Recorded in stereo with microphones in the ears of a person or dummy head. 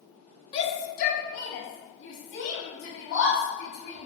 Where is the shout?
30° left (ahead or behind), 0.6 m; by 4.1 s 40° left (ahead or behind), 2 m.